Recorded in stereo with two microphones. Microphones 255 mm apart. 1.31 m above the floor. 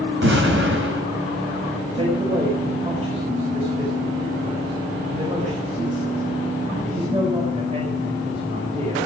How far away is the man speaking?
About 5 m.